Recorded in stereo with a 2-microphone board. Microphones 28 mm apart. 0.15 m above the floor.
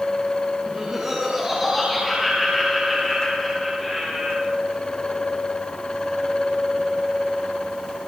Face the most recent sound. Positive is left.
turn(degrees=10)  # may be behind; listen again after turning